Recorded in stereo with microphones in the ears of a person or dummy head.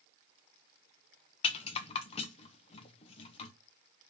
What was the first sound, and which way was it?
A rattle, 35° left (ahead or behind).